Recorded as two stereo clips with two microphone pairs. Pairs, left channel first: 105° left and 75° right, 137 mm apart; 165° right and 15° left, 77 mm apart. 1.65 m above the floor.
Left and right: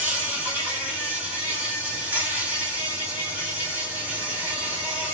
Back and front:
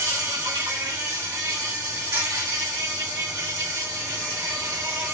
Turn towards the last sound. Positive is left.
turn(degrees=0)